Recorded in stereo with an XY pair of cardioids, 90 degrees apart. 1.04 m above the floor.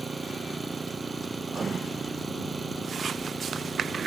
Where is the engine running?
30° right.